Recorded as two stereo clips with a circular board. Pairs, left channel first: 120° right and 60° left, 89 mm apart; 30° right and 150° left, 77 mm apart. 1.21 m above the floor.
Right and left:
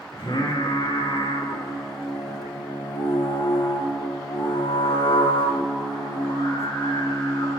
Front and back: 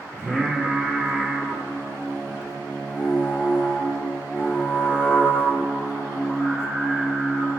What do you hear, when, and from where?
0.1 s singing: 95° right, 2.5 m